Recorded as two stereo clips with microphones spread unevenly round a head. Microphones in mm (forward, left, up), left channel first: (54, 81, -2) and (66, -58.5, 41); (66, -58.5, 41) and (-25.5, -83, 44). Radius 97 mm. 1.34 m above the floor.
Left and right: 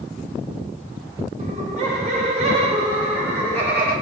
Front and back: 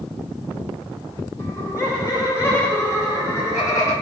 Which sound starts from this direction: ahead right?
Laughter, at 1.4 s.